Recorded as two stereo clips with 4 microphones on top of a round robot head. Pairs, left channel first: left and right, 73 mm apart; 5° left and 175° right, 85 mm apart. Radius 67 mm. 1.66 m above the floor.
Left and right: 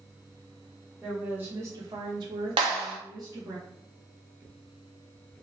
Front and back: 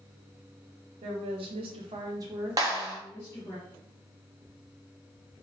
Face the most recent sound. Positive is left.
turn(degrees=-115)